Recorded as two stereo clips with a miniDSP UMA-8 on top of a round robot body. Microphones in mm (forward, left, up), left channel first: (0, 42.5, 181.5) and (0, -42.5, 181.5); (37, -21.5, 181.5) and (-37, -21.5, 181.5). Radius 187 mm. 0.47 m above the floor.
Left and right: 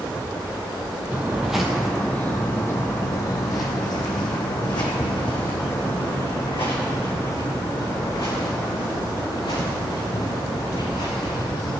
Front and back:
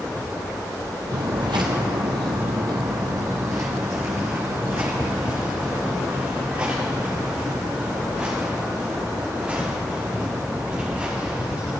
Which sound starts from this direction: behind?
Footsteps, at 1.1 s.